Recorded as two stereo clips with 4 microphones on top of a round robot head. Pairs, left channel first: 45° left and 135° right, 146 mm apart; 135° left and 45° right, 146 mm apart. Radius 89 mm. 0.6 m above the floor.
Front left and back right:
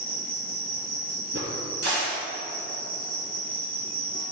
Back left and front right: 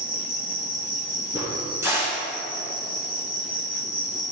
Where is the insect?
125° right, 2.5 m.